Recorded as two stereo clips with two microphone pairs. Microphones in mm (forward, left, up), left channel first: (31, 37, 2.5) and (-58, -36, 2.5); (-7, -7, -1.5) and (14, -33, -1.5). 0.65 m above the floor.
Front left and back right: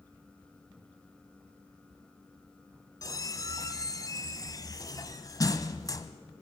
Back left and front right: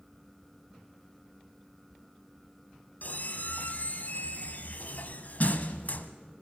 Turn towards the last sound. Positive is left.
turn(degrees=95)